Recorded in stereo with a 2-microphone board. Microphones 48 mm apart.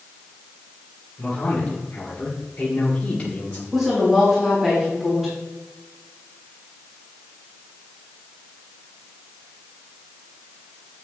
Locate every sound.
1.2 s a man speaking: 15° left (ahead or behind), 3 m; by 3.6 s 25° left (ahead or behind), 1.4 m
3.7 s a woman speaking: 5° right (ahead or behind), 3.5 m